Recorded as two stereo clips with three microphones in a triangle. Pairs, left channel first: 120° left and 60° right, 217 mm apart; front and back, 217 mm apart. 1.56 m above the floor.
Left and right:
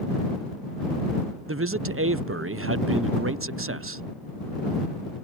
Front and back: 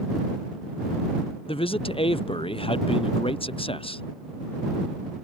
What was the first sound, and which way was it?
A man speaking, 65° right.